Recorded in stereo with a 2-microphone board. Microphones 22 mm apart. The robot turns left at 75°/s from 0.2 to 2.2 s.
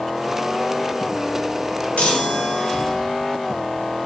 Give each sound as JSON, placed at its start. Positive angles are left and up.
{"t": 2.0, "sound": "a chime", "side_deg": 75, "distance_m": 1.1}